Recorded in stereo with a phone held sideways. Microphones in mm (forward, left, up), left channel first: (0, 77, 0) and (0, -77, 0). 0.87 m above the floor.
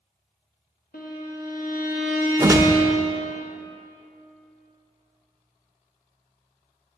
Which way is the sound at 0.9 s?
70° left (ahead or behind).